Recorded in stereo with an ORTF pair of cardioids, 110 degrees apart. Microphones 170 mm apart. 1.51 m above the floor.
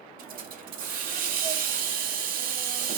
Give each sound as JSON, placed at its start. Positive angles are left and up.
{"t": 0.2, "sound": "a hiss", "azimuth_deg": -70, "distance_m": 0.8}